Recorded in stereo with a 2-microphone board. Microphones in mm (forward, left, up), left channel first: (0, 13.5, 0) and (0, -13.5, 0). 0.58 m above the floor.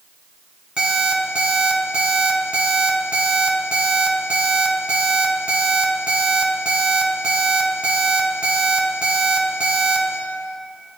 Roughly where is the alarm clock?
Right.